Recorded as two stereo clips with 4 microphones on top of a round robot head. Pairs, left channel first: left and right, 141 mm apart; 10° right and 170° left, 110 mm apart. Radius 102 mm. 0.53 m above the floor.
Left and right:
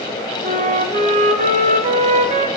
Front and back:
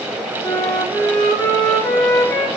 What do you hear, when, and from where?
0.4 s a flute: 75° right, 0.8 m